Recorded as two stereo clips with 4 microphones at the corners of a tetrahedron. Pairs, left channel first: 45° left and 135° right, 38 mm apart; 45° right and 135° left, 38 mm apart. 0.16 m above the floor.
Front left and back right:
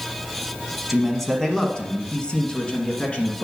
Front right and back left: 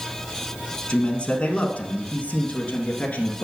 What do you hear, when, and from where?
0.9 s a man speaking: 45° right, 1.1 m; by 3.5 s 5° left, 1.9 m